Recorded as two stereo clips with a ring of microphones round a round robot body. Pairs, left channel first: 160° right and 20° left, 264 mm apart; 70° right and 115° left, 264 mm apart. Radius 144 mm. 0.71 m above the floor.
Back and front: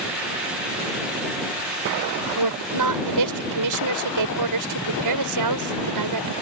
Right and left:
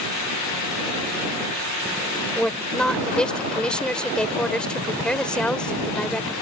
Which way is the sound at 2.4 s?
20° left.